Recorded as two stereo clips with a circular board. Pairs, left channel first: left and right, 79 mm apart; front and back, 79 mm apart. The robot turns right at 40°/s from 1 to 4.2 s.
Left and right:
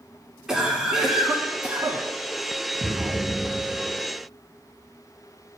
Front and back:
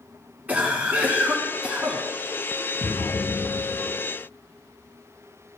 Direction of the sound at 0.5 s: 155° right.